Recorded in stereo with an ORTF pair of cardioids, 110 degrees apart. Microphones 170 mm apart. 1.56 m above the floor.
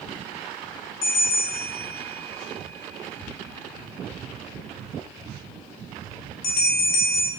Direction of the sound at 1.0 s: 60° left.